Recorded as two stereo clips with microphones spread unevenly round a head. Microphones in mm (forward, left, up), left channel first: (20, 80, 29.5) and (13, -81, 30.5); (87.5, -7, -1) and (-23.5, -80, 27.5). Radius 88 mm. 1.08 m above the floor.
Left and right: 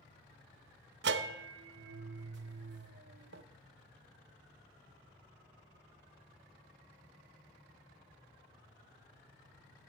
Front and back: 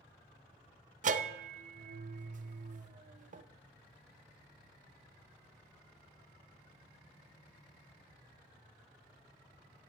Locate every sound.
1.0 s a bell: 115° right, 0.6 m